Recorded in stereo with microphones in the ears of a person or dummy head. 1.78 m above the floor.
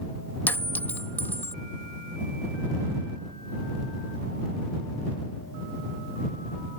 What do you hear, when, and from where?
0.5 s a clink: 10° left (ahead or behind)